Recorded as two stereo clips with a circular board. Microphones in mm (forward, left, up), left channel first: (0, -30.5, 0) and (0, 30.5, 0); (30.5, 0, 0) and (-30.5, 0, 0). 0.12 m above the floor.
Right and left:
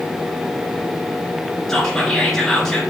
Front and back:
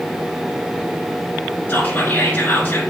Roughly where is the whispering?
Ahead.